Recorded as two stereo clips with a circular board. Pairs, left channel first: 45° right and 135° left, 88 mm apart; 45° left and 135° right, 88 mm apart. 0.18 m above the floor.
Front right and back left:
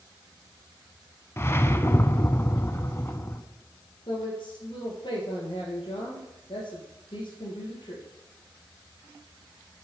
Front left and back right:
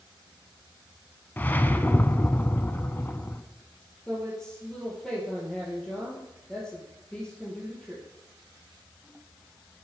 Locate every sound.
1.4 s a whoosh: 10° right, 0.6 m
4.1 s a woman speaking: 35° right, 3.5 m